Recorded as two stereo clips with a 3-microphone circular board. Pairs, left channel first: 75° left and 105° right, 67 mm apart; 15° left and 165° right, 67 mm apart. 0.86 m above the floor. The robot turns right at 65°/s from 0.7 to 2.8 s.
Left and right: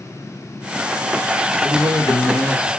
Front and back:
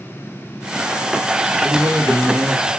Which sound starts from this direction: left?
A man speaking, at 1.6 s.